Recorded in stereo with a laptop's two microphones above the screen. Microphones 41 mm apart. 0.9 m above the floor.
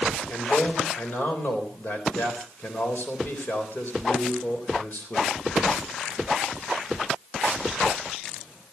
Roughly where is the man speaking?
Left.